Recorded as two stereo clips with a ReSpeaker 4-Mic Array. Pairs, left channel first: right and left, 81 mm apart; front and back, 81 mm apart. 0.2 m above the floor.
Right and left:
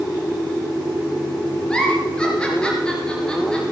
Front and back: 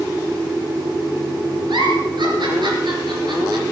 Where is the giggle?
170° right, 3.5 m.